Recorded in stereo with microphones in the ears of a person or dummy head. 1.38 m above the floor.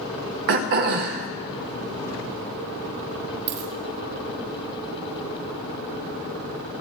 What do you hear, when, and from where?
0.5 s throat clearing: 50° right (ahead or behind), 0.8 m
3.5 s a dropped coin: 40° right (ahead or behind), 2.5 m